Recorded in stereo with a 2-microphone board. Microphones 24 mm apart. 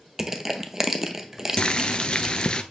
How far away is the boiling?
About 0.7 m.